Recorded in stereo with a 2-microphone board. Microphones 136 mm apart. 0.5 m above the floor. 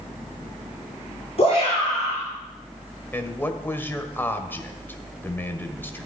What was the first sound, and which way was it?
A shout, 50° left (ahead or behind).